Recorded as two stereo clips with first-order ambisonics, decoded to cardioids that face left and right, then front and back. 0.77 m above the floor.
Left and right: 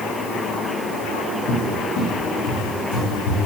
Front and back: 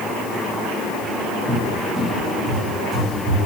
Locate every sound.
1.5 s a cupboard door: 95° left, 0.8 m